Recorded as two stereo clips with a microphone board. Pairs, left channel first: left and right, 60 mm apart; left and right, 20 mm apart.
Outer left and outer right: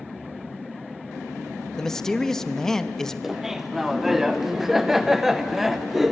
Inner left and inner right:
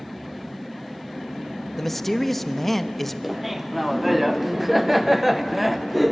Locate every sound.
1.8 s a man speaking: 10° left (ahead or behind), 1.0 m
3.2 s laughter: 5° right (ahead or behind), 0.6 m